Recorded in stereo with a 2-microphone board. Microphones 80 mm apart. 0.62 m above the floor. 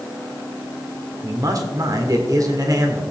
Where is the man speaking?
50° right (ahead or behind), 1.7 m.